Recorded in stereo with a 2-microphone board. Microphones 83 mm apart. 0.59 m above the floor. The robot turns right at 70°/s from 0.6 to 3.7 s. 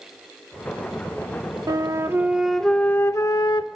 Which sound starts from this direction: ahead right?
A flute, at 1.7 s.